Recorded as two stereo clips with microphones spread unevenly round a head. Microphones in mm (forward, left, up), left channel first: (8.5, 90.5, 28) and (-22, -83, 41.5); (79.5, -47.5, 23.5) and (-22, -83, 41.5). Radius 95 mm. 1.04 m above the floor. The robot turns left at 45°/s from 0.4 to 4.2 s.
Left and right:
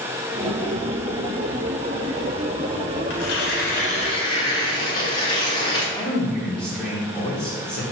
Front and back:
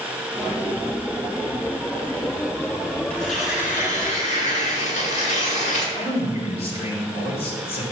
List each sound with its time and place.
3.1 s tearing paper: 65° left, 1.9 m; by 5.8 s 15° left, 1.9 m
6.0 s a man speaking: 5° right, 3 m